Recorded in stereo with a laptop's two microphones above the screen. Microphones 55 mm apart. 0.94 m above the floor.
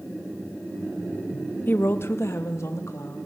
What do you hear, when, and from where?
1.7 s a woman speaking: 40° left (ahead or behind), 0.7 m; by 3.3 s 75° left (ahead or behind), 1.8 m